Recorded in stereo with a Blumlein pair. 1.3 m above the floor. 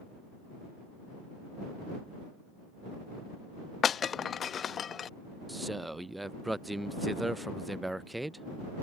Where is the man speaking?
5° right.